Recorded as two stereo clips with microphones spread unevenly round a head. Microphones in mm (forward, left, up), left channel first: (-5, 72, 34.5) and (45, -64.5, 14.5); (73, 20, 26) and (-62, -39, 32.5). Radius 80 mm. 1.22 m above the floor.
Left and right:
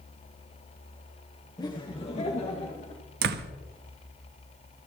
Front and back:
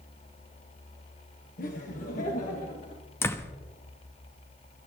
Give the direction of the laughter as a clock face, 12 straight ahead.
11 o'clock.